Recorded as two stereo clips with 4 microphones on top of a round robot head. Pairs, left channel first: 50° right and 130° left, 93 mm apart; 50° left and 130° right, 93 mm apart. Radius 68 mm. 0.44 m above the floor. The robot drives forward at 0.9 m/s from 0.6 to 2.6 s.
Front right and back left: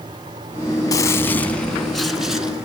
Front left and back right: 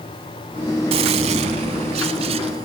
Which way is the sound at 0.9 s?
105° right.